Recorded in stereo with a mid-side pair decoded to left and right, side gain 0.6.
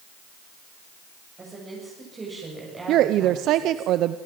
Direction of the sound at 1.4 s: 25° right.